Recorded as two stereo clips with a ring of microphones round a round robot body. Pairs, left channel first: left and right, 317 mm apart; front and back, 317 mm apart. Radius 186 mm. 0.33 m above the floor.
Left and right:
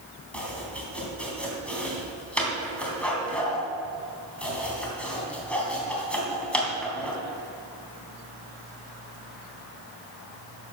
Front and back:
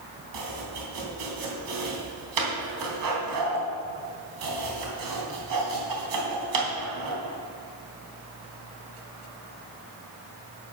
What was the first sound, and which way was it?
Chopping, 175° left.